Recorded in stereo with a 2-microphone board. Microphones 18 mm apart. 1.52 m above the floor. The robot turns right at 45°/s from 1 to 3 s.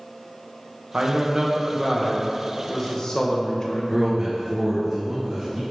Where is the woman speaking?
60° right, 1.4 m; by 4.1 s 30° left, 1.4 m.